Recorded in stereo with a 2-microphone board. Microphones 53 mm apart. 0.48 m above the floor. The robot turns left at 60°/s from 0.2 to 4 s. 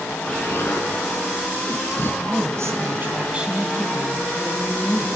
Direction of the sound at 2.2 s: 85° right.